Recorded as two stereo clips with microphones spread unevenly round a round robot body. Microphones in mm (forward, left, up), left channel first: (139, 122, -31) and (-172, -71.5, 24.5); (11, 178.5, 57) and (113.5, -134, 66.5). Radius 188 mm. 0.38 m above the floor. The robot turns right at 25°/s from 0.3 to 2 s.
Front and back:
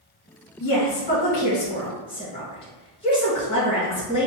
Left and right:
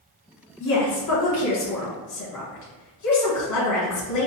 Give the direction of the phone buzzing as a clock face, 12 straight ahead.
I don't hear a phone buzzing.